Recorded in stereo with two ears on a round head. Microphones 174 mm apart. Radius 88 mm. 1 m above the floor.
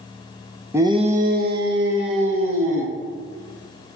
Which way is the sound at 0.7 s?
10° right (ahead or behind).